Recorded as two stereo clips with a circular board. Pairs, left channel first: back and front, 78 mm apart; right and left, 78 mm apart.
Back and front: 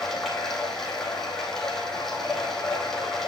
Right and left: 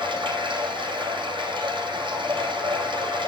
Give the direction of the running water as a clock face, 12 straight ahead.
9 o'clock.